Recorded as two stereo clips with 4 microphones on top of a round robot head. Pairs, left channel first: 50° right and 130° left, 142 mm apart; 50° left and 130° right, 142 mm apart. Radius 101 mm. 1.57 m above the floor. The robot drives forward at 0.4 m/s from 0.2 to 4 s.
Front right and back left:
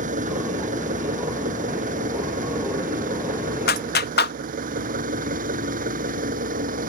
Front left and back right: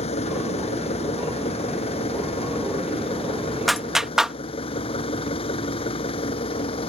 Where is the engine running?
100° left; by 6.9 s 105° left.